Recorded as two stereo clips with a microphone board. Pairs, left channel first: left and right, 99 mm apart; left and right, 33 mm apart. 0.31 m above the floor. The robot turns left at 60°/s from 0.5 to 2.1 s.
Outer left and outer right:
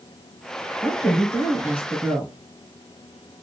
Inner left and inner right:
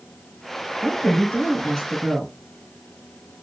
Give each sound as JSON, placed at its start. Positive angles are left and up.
{"t": 0.8, "sound": "a woman speaking", "azimuth_deg": 70, "distance_m": 1.8}